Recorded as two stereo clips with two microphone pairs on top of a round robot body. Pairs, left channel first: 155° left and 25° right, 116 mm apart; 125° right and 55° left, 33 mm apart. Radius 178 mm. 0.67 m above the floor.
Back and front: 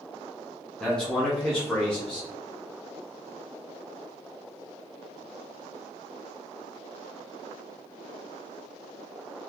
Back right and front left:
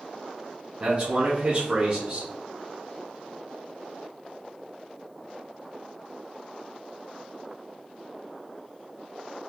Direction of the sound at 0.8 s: 70° left.